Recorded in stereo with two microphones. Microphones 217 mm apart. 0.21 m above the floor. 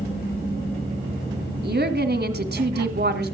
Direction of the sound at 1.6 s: 50° right (ahead or behind).